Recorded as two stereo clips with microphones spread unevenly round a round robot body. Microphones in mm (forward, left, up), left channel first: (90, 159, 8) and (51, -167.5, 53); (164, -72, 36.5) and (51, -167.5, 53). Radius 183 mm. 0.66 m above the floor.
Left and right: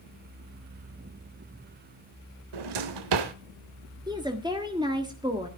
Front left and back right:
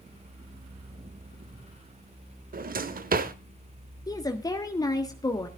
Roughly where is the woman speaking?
Ahead.